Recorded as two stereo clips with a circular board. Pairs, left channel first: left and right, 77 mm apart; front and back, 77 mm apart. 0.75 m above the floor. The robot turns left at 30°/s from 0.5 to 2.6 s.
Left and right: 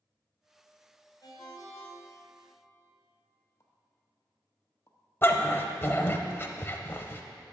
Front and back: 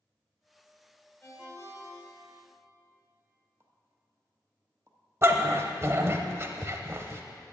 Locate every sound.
1.2 s a ringtone: 60° left, 2 m; by 2.4 s 25° left, 2 m
3.6 s a pop: 135° left, 1.0 m
5.2 s a dog barking: 140° left, 0.7 m